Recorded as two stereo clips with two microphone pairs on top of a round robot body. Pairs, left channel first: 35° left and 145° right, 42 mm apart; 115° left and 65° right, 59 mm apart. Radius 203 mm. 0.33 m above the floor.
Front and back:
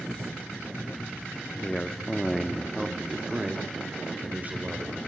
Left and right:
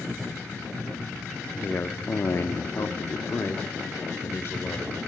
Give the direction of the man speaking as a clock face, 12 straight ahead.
9 o'clock.